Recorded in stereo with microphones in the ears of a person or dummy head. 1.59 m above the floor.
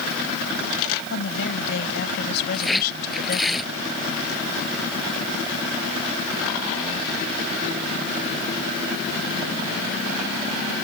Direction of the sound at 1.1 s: 70° left (ahead or behind).